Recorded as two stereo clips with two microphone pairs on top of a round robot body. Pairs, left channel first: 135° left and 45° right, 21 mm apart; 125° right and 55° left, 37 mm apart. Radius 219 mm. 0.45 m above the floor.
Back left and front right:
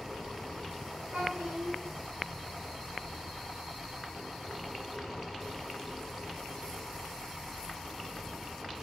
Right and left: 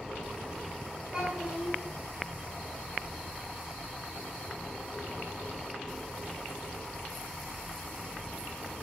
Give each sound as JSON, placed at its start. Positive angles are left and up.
{"t": 1.1, "sound": "a child speaking", "azimuth_deg": -35, "distance_m": 1.8}